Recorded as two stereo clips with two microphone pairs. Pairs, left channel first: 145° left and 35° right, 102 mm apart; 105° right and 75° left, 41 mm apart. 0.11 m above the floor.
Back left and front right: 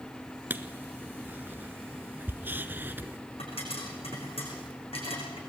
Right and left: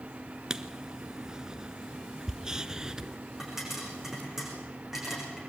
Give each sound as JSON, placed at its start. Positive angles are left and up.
{"t": 0.5, "sound": "writing", "azimuth_deg": 15, "distance_m": 0.9}
{"t": 3.4, "sound": "a pop", "azimuth_deg": 155, "distance_m": 7.0}